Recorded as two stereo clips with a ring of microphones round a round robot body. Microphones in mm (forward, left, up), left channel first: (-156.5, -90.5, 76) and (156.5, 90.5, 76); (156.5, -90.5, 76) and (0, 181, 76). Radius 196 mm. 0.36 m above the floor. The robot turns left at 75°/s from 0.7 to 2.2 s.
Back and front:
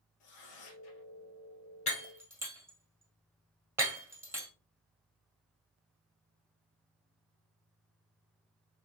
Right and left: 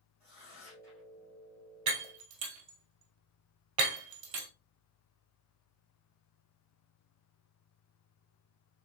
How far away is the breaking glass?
About 1.8 m.